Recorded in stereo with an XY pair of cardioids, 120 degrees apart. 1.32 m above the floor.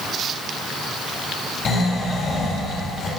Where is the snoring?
45° left, 6.5 m.